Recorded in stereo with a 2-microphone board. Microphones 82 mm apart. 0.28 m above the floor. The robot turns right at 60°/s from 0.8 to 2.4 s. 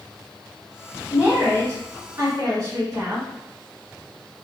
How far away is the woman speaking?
About 1.0 m.